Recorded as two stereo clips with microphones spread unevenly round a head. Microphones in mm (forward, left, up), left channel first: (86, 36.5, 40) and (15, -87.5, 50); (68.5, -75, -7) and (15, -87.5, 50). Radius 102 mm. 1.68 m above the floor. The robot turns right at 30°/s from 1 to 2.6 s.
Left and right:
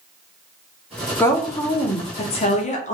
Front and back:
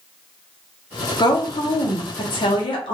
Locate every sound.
1.2 s a woman speaking: 20° right, 0.7 m; by 3.0 s 25° left, 0.7 m